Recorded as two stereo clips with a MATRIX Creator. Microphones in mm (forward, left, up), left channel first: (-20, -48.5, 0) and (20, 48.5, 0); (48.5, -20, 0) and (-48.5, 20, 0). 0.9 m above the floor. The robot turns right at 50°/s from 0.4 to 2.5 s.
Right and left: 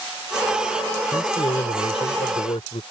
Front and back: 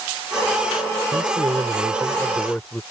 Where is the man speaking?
165° right; by 2.8 s 95° right.